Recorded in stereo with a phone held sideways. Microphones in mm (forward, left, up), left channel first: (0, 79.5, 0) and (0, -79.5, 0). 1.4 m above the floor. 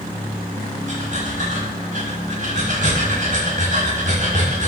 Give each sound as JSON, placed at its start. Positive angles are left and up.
{"t": 0.9, "sound": "breathing", "side_deg": -55, "distance_m": 5.5}